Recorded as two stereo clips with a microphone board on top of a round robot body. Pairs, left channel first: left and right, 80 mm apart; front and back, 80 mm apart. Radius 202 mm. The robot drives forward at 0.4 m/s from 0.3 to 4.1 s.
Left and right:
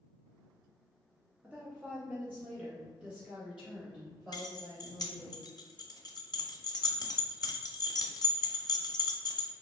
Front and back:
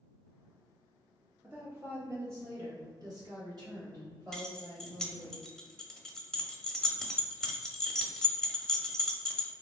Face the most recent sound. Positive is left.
turn(degrees=85)